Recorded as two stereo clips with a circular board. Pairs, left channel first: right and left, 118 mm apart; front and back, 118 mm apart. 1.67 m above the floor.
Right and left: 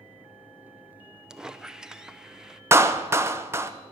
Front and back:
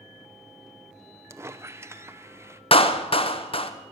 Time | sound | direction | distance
1.3 | a squeak | 165° left | 0.6 m
2.7 | a clap | 25° left | 0.8 m